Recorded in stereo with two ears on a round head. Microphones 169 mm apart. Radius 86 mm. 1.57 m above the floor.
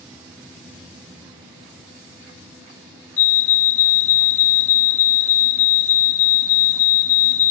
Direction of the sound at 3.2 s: 40° left (ahead or behind).